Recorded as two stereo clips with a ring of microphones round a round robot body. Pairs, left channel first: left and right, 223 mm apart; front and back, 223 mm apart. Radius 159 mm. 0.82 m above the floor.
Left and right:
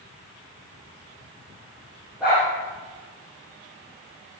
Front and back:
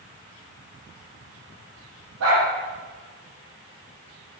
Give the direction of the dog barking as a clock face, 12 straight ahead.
6 o'clock.